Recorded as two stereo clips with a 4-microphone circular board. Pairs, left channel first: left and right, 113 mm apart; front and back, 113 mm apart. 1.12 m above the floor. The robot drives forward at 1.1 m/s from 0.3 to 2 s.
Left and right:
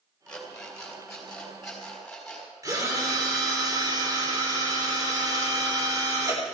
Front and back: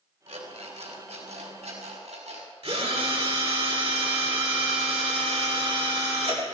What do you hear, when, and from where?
0.3 s an alarm clock: 170° left, 3 m; by 2.5 s 175° left, 4.5 m
2.6 s a drill: 150° right, 3 m